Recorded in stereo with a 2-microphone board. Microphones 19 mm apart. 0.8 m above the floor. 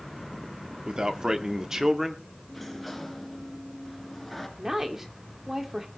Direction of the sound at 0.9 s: 45° right (ahead or behind).